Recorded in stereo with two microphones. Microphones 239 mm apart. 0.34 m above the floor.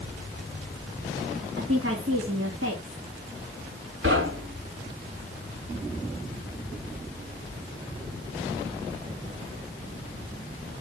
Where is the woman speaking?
65° right (ahead or behind), 3 m.